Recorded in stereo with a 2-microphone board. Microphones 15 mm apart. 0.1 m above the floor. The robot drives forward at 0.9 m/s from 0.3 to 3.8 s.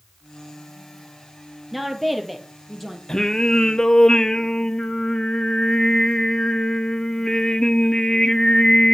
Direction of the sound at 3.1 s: 40° left (ahead or behind).